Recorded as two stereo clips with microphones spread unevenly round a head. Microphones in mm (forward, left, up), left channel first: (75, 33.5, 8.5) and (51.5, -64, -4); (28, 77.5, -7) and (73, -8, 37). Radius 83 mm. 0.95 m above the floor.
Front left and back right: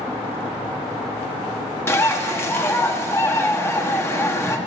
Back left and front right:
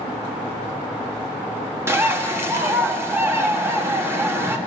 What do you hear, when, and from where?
1.9 s a bird: 10° left, 1.5 m